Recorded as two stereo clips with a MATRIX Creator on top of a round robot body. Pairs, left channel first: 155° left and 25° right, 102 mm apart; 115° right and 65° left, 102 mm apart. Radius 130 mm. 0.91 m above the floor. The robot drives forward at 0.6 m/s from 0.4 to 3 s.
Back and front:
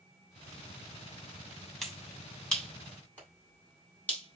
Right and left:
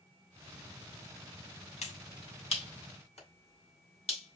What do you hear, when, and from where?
1.8 s a finger snap: 115° right, 3 m; by 4.4 s 130° right, 3.5 m